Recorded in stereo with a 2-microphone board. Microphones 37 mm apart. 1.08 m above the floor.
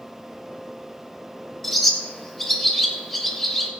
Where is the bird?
10° left (ahead or behind), 2 m.